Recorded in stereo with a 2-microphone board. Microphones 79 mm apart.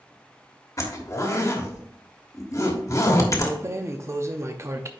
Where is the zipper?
40° left (ahead or behind), 1.3 m.